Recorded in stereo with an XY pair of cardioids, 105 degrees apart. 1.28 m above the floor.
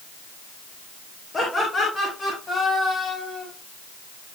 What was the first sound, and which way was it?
Laughter, 30° left.